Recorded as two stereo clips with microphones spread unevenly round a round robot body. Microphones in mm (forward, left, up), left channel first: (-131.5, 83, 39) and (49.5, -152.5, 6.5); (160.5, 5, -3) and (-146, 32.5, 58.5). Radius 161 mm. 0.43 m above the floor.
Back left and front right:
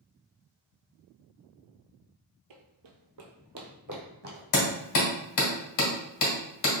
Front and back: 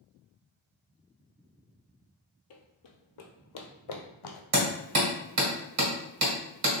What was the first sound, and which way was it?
Running footsteps, 55° right.